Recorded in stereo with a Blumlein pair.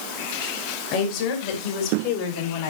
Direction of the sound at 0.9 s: 40° left.